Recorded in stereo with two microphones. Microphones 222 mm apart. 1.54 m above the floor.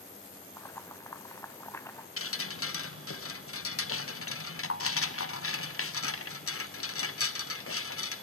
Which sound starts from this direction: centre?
Boiling, at 0.6 s.